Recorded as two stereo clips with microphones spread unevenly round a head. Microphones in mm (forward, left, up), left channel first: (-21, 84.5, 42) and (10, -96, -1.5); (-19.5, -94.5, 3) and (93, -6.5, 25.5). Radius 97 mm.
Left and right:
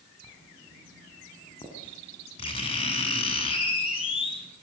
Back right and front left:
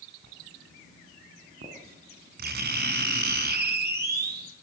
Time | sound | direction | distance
0.2 | writing | 40° left | 6.5 m